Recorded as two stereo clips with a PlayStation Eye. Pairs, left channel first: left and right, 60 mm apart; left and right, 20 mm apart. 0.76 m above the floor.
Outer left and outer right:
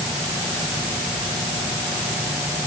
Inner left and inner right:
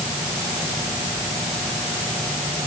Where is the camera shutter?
No camera shutter in this recording.